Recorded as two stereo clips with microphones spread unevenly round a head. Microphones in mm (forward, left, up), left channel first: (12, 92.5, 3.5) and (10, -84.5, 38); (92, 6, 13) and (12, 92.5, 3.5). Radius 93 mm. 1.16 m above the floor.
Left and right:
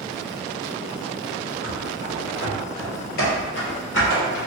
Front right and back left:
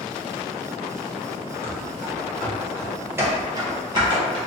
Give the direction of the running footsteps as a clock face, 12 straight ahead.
11 o'clock.